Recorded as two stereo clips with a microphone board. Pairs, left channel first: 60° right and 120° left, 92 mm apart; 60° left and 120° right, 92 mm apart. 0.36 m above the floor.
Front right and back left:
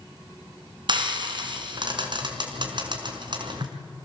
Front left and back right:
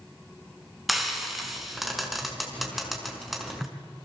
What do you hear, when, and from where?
0.9 s frying: 150° left, 4.5 m